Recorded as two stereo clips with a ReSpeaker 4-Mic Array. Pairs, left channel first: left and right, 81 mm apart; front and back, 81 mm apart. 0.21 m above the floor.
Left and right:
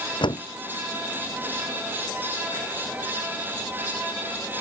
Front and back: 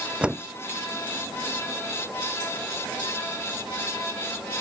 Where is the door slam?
100° left.